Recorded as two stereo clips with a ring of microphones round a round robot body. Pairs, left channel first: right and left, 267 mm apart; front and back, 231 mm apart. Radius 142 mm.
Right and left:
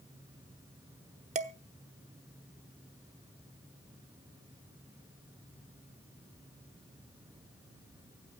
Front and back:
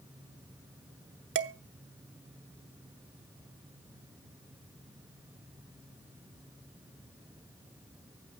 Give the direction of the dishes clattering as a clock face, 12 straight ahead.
7 o'clock.